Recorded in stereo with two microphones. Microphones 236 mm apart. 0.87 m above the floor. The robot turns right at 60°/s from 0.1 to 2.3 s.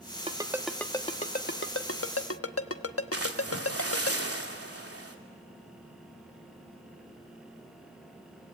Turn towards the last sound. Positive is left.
turn(degrees=-75)  # may be behind; listen again after turning